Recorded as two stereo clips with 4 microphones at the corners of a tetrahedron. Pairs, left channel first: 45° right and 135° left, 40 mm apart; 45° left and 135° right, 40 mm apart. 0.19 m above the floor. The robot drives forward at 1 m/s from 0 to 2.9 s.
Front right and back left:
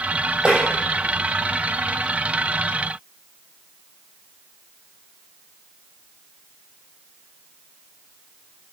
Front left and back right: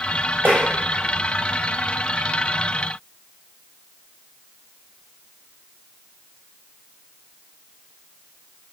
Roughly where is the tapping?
Behind.